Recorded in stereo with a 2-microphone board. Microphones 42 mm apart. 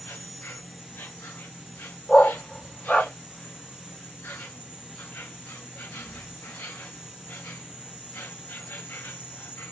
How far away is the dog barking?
About 1.4 m.